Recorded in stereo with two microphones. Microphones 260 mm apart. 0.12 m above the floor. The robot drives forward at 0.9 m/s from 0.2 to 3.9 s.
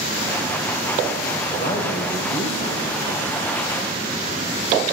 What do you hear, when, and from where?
1.6 s a man speaking: 25° left (ahead or behind), 4 m; by 2.8 s 20° left (ahead or behind), 5 m